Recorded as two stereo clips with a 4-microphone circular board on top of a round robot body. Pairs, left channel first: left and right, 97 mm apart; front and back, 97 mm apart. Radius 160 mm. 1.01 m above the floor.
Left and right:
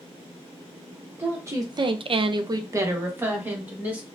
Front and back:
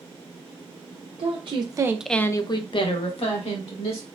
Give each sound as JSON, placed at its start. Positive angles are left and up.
{"t": 1.2, "sound": "a woman speaking", "azimuth_deg": -160, "distance_m": 0.9}